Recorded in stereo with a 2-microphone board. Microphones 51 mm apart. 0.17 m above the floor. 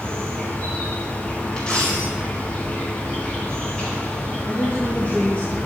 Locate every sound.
0.0 s an insect: 20° left (ahead or behind), 4 m
1.6 s a dropped coin: 15° left (ahead or behind), 3.5 m
4.5 s a woman speaking: 35° left (ahead or behind), 3.5 m